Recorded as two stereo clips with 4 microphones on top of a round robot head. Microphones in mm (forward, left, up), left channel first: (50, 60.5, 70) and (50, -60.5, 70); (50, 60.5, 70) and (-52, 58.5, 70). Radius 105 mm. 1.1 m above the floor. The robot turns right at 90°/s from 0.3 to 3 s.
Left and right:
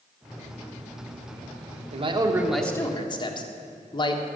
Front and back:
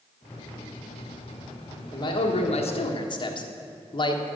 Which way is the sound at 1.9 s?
60° right.